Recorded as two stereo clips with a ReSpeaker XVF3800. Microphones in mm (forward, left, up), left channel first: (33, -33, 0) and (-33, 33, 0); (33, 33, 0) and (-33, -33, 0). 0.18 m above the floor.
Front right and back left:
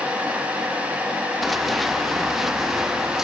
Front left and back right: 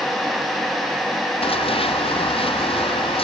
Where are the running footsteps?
45° left; by 3.2 s 50° left.